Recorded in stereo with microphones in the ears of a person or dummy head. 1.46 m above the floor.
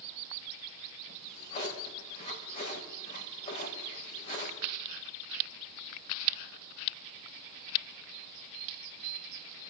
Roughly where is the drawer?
Left.